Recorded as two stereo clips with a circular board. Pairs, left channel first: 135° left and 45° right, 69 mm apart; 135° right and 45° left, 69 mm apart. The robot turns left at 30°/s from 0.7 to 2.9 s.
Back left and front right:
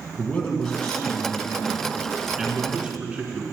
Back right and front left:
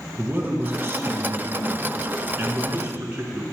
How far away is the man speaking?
About 1.4 m.